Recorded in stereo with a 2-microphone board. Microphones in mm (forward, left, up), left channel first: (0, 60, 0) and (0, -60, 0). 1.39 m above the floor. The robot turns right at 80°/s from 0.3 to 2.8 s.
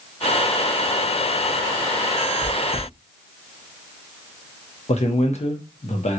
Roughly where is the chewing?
Left.